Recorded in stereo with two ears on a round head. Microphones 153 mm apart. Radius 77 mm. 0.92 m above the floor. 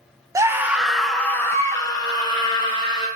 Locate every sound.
0.3 s a scream: 20° right (ahead or behind), 0.8 m; by 3.1 s 30° left (ahead or behind), 1.6 m